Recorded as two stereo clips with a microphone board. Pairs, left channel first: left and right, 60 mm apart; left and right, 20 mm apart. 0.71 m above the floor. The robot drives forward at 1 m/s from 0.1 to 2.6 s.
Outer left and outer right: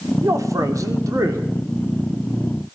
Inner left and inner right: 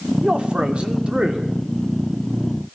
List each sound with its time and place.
0.2 s a man speaking: 60° right (ahead or behind), 2 m